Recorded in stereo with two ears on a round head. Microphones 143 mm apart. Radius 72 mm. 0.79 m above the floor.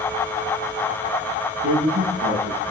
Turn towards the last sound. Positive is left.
turn(degrees=-80)